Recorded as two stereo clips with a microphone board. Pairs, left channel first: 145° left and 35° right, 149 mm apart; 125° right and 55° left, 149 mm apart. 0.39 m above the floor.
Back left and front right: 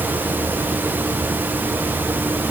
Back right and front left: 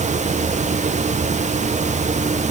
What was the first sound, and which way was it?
Only background noise.